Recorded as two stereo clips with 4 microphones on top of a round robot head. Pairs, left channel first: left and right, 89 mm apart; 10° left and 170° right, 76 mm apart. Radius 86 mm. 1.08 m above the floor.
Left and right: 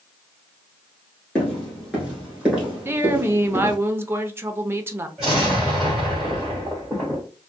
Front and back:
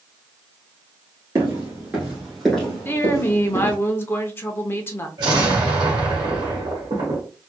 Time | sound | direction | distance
1.4 | footsteps | 170° left | 1.2 m
2.9 | a woman speaking | 35° right | 0.6 m
5.2 | an explosion | 175° right | 1.1 m